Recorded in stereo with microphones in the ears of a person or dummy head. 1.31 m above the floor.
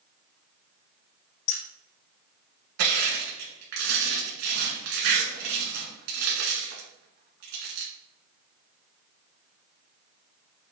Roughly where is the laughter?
I don't hear laughter.